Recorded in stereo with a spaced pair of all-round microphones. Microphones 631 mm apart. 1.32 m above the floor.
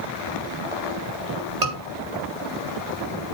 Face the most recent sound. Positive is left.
turn(degrees=-75)  # may be behind; listen again after turning